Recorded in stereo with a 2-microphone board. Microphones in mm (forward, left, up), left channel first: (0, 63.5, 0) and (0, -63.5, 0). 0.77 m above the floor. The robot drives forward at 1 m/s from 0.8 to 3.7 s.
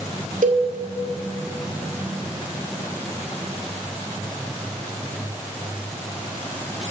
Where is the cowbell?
85° right, 1.7 m.